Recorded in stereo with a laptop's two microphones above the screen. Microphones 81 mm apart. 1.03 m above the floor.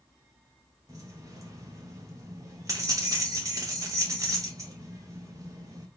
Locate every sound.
0.9 s keys jangling: 40° right (ahead or behind), 0.7 m